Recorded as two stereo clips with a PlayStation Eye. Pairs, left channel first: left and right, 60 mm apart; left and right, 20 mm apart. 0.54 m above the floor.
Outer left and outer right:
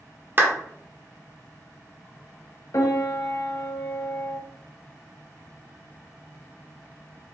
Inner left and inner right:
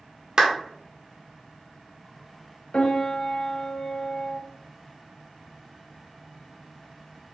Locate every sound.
0.4 s a clap: 35° right (ahead or behind), 1.0 m
2.7 s a piano: 60° left (ahead or behind), 0.8 m